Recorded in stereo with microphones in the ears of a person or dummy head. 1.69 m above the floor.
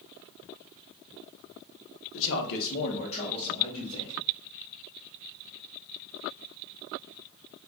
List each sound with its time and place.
2.1 s a man speaking: 70° left (ahead or behind), 0.8 m; by 4.2 s 20° left (ahead or behind), 2 m